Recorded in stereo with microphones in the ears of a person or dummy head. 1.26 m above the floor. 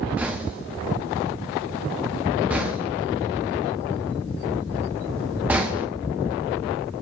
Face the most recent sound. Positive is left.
turn(degrees=-15)  # may be behind; listen again after turning